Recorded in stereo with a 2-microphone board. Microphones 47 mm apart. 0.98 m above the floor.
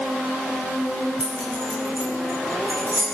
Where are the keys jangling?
25° right (ahead or behind), 6 m; by 3.0 s 40° right (ahead or behind), 7 m.